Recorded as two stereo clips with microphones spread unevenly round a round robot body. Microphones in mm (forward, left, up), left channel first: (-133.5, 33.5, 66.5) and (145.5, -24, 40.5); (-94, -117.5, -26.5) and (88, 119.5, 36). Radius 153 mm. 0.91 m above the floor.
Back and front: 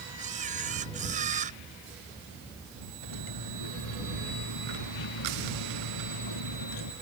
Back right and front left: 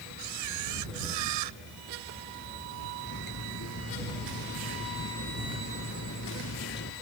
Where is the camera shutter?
55° left.